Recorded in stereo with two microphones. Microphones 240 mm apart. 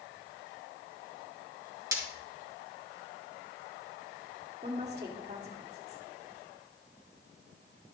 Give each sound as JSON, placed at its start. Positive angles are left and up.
{"t": 1.9, "sound": "breaking glass", "side_deg": -15, "distance_m": 5.0}
{"t": 4.6, "sound": "a woman speaking", "side_deg": -30, "distance_m": 2.0}